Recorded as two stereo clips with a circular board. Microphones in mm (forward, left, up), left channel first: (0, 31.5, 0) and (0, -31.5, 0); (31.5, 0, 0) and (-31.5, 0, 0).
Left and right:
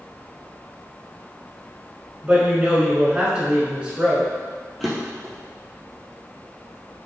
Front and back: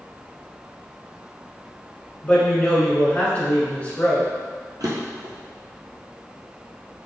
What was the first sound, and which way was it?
A woman speaking, 40° right.